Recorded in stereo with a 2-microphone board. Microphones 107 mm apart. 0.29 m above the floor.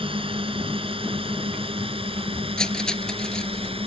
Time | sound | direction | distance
0.0 | a drone | 55° right (ahead or behind) | ?
2.6 | cutlery clinking | 5° left (ahead or behind) | ?